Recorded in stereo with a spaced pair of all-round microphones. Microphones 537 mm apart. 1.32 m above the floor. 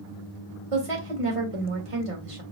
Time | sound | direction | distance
0.7 | a woman speaking | 80° right | 1.5 m